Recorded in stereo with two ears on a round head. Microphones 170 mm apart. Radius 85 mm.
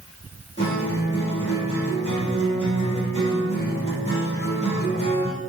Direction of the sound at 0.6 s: 30° left (ahead or behind).